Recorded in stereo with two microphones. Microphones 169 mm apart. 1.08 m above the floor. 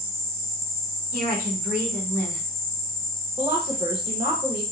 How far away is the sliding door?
I don't hear a sliding door.